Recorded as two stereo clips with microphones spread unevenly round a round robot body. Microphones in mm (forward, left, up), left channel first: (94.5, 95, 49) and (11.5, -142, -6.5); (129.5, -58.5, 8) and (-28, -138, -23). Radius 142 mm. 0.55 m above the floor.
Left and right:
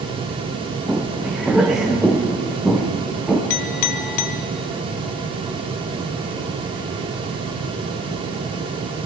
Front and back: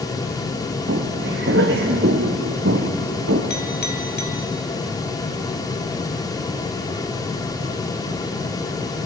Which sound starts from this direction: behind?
Footsteps, at 0.9 s.